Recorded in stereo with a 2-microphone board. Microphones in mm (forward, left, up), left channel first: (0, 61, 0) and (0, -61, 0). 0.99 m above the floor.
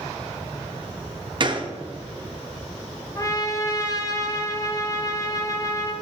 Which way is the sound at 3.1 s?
30° left (ahead or behind).